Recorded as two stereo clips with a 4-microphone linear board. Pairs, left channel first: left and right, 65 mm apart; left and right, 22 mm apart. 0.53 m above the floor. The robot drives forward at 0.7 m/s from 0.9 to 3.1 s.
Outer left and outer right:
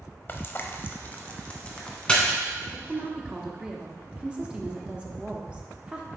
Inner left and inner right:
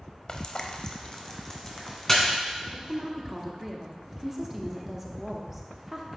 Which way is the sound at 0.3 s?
35° left (ahead or behind).